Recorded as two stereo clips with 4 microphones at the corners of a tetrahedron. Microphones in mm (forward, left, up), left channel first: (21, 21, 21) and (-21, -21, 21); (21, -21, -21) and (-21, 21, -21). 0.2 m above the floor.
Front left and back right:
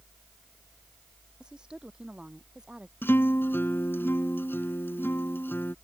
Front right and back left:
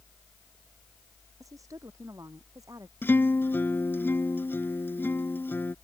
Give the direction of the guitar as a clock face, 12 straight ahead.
12 o'clock.